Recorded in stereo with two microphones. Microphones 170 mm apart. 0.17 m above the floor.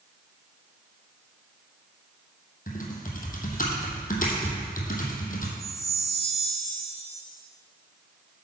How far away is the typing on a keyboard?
About 1.5 m.